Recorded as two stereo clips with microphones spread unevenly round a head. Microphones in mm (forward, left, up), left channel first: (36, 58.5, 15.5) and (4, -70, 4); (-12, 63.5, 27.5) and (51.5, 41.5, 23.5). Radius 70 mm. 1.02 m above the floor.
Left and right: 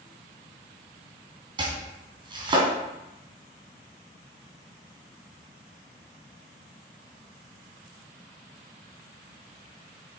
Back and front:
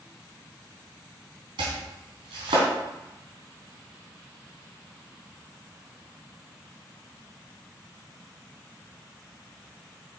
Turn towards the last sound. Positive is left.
turn(degrees=-50)